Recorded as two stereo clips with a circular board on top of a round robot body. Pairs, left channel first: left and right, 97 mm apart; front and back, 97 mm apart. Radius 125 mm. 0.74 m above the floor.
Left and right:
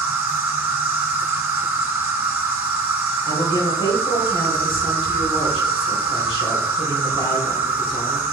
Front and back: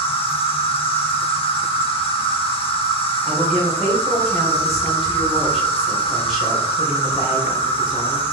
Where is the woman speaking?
90° left, 3 m.